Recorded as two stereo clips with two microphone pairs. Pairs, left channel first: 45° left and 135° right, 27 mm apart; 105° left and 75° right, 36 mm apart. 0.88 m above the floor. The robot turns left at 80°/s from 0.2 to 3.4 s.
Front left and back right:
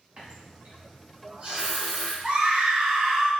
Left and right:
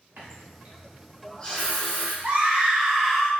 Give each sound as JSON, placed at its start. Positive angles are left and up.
{"t": 0.2, "sound": "a running tap", "azimuth_deg": -90, "distance_m": 1.0}
{"t": 2.2, "sound": "a scream", "azimuth_deg": -100, "distance_m": 0.8}